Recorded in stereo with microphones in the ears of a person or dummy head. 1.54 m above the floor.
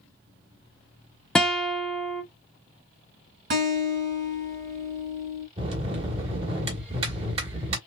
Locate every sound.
1.4 s a guitar: 5° left (ahead or behind), 0.6 m
3.5 s a guitar: 55° right (ahead or behind), 2 m
5.6 s a bell: 35° right (ahead or behind), 1.6 m